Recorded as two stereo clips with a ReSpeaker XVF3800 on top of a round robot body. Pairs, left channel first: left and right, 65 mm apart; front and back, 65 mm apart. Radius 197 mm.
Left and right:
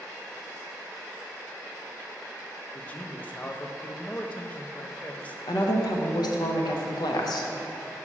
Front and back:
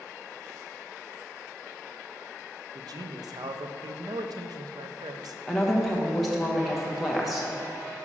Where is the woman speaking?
90° left, 1.0 m.